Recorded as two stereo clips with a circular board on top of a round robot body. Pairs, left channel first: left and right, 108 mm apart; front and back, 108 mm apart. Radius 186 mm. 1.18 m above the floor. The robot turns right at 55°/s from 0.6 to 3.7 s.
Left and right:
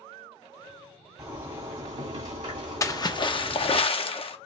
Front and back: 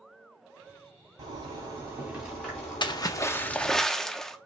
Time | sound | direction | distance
1.2 | a zipper | 155° right | 2.5 m
2.8 | a splash | 35° left | 0.7 m